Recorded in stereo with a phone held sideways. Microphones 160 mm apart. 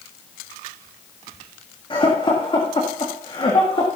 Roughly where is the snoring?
I don't hear snoring.